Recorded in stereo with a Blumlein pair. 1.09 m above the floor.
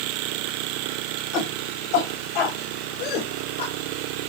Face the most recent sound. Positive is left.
turn(degrees=55)